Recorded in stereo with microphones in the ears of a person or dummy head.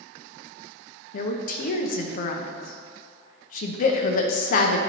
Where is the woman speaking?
55° left (ahead or behind), 0.7 m.